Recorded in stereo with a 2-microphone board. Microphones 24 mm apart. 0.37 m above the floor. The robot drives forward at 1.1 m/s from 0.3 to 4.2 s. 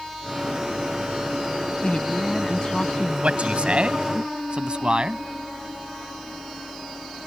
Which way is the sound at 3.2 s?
60° right (ahead or behind).